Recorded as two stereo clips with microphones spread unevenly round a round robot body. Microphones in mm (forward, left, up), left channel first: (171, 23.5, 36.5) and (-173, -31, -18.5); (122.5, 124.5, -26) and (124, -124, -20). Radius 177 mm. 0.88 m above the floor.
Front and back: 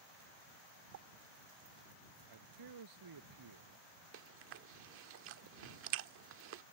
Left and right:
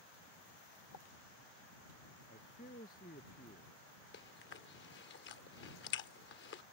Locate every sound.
0.9 s a pop: 140° left
2.3 s a man speaking: 155° left
4.1 s chewing: 135° left